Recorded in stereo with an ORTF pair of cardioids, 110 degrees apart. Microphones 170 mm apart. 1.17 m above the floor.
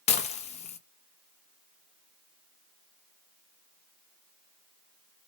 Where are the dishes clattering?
40° left, 0.9 m.